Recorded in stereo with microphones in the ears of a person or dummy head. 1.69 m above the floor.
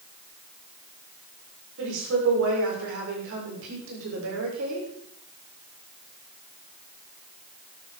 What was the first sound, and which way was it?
A woman speaking, 70° right (ahead or behind).